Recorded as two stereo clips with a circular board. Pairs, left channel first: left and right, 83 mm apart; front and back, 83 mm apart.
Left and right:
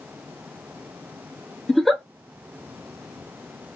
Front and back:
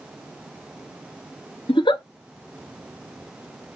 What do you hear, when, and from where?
1.7 s a giggle: straight ahead, 0.6 m